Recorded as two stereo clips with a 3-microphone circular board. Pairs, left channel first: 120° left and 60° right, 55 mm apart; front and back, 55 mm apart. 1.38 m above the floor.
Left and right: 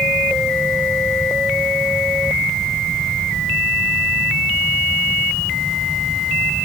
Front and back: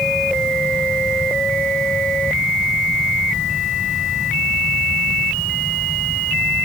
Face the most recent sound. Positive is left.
No sound to turn to.